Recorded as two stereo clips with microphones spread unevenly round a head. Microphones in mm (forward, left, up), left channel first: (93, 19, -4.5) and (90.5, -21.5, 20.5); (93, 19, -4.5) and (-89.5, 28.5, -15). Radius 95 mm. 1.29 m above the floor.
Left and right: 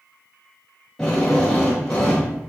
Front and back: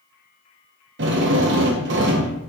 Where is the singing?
I don't hear singing.